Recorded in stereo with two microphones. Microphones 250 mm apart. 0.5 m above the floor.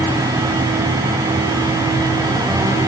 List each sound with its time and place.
Only background noise.